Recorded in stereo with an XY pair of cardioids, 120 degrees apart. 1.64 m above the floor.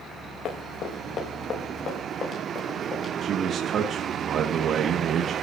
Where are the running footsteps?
55° left, 6 m; by 3.1 s 30° left, 8 m.